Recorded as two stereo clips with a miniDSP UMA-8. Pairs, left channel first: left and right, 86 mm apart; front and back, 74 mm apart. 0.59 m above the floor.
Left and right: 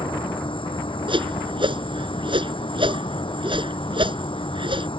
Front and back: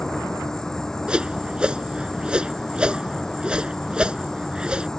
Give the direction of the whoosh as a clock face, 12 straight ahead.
3 o'clock.